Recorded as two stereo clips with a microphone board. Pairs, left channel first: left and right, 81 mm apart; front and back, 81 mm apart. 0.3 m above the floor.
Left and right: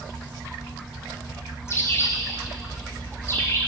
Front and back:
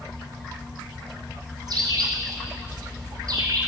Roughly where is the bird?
Behind left.